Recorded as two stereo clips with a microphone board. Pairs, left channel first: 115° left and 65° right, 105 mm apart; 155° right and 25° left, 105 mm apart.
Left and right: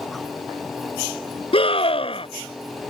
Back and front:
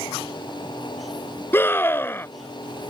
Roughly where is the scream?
Behind left.